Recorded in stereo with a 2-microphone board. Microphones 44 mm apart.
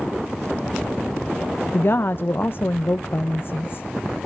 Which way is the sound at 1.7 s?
50° left (ahead or behind).